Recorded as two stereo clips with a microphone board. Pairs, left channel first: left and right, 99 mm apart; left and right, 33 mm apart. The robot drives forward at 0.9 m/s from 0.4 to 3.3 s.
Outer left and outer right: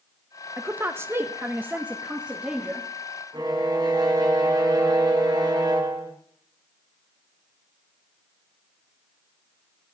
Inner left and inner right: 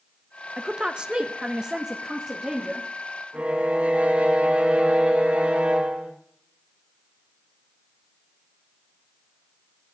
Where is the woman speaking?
20° right (ahead or behind), 0.9 m; by 2.9 s 10° right (ahead or behind), 1.8 m.